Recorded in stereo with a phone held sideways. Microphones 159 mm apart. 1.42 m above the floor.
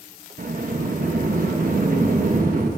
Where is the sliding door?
65° right (ahead or behind), 1.2 m.